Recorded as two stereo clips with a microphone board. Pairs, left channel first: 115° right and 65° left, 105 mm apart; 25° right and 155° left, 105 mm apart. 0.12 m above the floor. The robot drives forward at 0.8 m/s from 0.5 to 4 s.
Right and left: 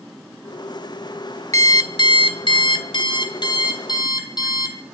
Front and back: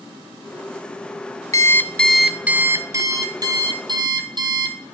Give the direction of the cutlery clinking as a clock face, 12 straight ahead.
No cutlery clinking in this recording.